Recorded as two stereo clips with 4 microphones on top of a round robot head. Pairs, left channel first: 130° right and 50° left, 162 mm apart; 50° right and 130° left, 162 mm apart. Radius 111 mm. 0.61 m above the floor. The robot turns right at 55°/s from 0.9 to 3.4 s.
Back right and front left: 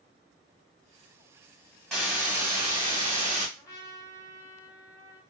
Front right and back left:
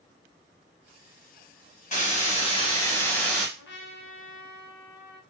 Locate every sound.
1.9 s a hiss: 45° right, 1.5 m; by 3.5 s 35° left, 1.5 m
3.6 s a trumpet: 60° right, 0.6 m